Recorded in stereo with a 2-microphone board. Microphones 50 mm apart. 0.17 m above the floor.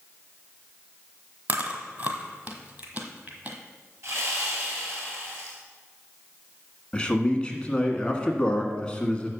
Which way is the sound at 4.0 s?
65° right (ahead or behind).